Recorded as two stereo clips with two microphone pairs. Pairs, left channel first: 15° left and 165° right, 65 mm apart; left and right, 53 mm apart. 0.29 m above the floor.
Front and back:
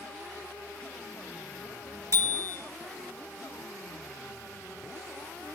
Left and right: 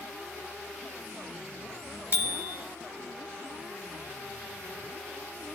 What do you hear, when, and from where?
2.1 s a bicycle bell: 140° right, 3.5 m